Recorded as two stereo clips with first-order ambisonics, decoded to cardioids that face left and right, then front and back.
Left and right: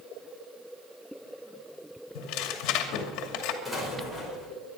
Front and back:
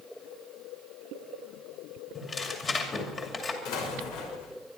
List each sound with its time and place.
2.1 s tearing paper: 70° left, 2.5 m
3.6 s an explosion: straight ahead, 5.5 m